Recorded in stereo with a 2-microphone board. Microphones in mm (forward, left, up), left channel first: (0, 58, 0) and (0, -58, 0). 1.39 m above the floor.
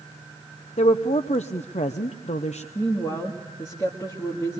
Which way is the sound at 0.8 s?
70° left (ahead or behind).